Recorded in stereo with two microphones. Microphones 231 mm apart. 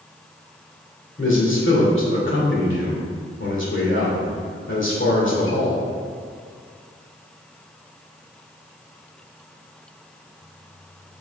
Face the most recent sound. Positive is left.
turn(degrees=55)  # may be behind; listen again after turning